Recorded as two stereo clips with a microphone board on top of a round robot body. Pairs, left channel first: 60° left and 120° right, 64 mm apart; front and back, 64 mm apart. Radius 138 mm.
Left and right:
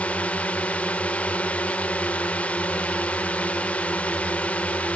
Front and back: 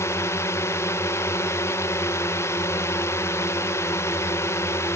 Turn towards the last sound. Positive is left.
turn(degrees=0)